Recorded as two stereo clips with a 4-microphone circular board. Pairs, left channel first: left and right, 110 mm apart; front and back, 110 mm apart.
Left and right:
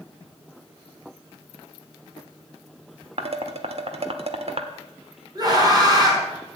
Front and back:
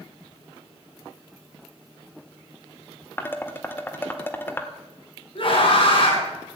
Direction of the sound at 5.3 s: 35° right.